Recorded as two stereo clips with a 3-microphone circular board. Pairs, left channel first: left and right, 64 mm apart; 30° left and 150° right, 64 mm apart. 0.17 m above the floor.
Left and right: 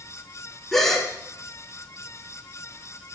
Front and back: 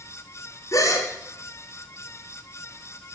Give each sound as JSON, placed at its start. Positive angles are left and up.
{"t": 0.7, "sound": "a gasp", "azimuth_deg": 5, "distance_m": 2.0}